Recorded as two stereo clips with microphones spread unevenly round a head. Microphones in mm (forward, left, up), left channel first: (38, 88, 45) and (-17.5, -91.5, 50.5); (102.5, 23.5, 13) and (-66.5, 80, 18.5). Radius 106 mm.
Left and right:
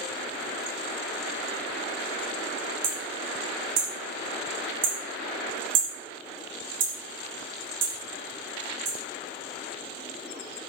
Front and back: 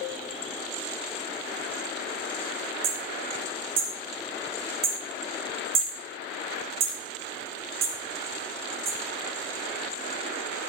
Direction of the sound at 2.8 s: 155° right.